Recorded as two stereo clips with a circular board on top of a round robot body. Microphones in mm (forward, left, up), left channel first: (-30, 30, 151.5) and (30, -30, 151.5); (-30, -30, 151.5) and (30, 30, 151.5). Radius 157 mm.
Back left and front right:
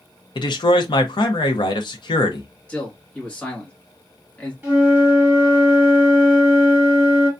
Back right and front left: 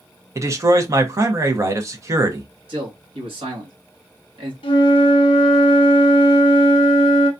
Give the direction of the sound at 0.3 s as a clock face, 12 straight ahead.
9 o'clock.